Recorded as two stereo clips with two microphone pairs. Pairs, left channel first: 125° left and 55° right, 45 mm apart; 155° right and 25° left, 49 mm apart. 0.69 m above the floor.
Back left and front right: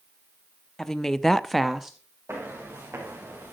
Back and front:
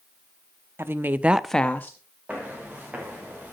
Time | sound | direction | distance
0.8 | a woman speaking | 45° left | 0.9 m
2.3 | footsteps | 40° right | 6 m